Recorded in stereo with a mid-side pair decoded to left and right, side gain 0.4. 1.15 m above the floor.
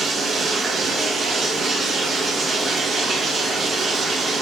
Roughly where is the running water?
Ahead right.